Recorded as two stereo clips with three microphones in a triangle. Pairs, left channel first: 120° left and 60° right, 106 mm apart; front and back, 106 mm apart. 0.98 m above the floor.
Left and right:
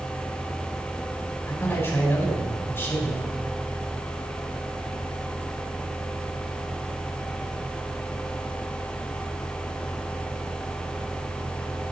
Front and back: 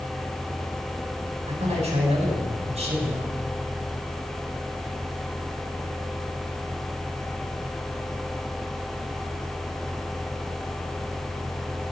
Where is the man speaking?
175° right, 5.5 m.